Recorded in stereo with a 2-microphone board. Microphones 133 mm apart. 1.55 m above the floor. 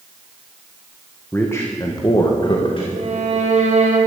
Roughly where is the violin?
Right.